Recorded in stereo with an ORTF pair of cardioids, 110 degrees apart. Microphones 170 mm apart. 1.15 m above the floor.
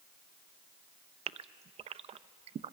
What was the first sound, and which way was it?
A gasp, 40° right.